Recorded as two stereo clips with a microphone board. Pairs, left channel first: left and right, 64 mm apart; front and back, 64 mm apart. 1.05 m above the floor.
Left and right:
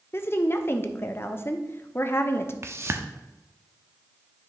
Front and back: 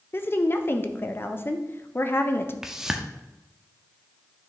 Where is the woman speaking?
45° left, 0.6 m.